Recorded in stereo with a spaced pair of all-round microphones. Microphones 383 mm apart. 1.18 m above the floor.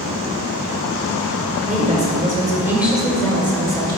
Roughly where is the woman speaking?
Right.